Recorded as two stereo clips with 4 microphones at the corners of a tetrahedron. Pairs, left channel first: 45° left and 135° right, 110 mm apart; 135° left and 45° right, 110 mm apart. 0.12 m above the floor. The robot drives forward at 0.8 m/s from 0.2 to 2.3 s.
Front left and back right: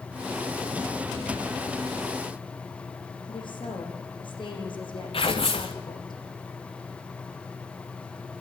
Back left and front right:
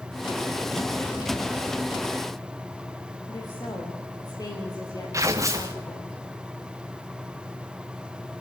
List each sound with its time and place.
3.3 s a woman speaking: 85° left, 7 m
5.1 s tearing paper: 15° left, 2 m